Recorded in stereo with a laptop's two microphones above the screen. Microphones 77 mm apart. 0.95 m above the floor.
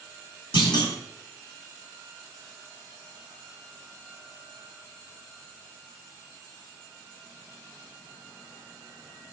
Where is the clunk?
60° left (ahead or behind), 0.8 m.